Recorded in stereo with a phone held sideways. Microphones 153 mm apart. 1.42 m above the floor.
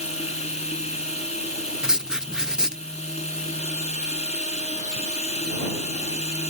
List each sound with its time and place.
0.0 s running water: 45° left (ahead or behind)
1.8 s writing: 5° right (ahead or behind)